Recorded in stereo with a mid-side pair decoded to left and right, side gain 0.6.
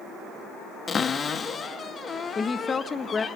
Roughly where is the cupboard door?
Ahead left.